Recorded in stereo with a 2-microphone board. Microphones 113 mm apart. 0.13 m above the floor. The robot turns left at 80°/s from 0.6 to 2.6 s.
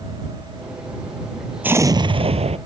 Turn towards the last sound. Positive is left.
turn(degrees=-95)